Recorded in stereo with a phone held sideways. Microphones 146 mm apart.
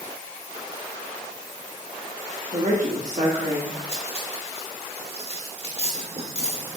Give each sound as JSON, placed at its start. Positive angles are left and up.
{"t": 2.5, "sound": "a woman speaking", "side_deg": -60, "distance_m": 1.6}
{"t": 3.9, "sound": "cutlery clinking", "side_deg": -45, "distance_m": 1.3}